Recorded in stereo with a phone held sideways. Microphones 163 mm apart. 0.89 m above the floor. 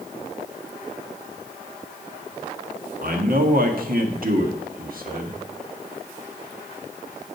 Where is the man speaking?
60° right (ahead or behind), 1.8 m.